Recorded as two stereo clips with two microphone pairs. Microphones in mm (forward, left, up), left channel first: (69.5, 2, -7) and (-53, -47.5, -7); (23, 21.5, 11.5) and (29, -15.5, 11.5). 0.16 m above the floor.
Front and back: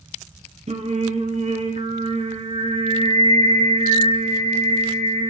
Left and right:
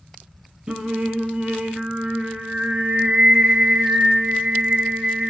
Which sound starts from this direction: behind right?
Singing, at 0.7 s.